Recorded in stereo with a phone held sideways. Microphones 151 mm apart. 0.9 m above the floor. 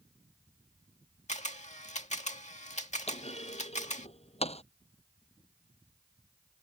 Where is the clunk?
45° left (ahead or behind).